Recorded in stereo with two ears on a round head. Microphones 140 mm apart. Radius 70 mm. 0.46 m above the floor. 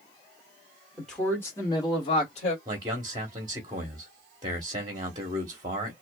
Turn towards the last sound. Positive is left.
turn(degrees=-25)  # may be behind; listen again after turning